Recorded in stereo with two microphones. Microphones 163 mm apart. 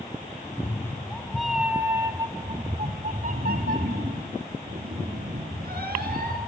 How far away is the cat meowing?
About 1.2 m.